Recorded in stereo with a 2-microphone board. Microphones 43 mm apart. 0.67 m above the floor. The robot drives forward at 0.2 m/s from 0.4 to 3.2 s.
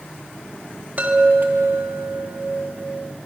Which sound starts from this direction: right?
A chime, at 1.0 s.